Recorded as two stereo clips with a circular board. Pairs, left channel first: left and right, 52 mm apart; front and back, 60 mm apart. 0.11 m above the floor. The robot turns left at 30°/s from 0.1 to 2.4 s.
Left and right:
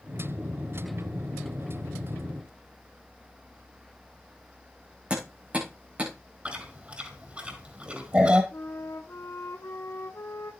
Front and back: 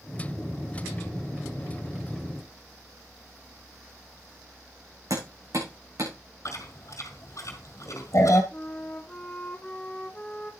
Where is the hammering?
155° right, 7.5 m.